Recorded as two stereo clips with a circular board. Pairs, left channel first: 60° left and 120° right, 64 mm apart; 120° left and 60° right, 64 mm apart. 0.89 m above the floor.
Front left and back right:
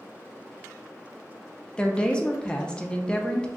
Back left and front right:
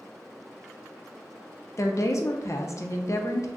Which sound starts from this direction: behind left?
A woman speaking, at 1.8 s.